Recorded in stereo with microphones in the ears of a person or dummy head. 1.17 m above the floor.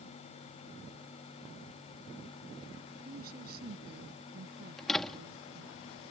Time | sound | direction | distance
3.0 | a woman speaking | 55° right (ahead or behind) | ?
4.8 | a door slam | centre (ahead or behind) | ?